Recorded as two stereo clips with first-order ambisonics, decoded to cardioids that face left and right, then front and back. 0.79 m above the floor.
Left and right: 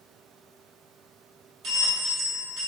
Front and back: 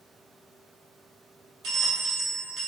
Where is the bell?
135° right, 1.3 m.